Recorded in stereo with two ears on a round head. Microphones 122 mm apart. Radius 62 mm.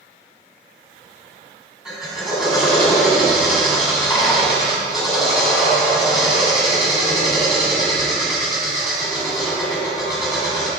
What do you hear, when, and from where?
1.9 s a drill: 5° right (ahead or behind), 3.5 m